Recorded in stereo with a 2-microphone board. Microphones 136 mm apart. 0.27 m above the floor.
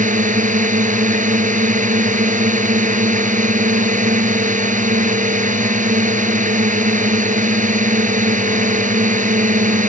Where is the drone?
70° right (ahead or behind).